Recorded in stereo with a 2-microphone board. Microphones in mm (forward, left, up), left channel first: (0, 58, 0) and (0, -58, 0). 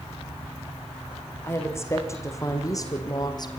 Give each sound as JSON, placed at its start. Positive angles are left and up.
{"t": 1.4, "sound": "a woman speaking", "side_deg": 20, "distance_m": 6.0}